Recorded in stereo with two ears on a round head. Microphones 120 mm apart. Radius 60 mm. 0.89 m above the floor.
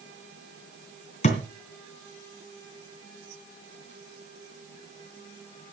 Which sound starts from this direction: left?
A thud, at 1.2 s.